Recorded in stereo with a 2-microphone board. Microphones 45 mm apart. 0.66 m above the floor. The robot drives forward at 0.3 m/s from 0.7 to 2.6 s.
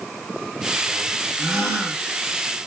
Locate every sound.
1.4 s a gasp: 75° right (ahead or behind), 1.8 m